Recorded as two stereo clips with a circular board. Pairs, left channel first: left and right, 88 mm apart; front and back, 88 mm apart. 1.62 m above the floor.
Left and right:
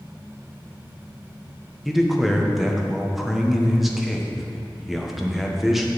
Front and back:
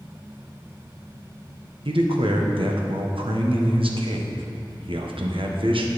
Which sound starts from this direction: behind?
A man speaking, at 1.9 s.